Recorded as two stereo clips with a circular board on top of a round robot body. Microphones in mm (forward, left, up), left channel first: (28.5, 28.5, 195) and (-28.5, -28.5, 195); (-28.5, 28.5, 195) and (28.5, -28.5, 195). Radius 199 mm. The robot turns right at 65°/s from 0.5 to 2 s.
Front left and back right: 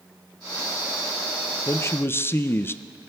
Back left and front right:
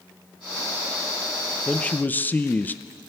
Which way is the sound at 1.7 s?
60° left.